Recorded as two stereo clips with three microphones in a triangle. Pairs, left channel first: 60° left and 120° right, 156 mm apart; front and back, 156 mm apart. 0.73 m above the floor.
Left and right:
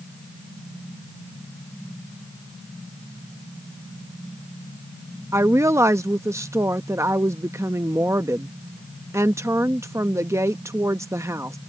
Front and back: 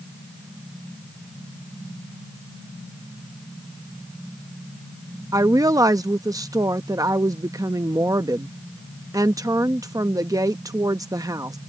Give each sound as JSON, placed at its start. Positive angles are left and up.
{"t": 5.3, "sound": "a woman speaking", "azimuth_deg": -160}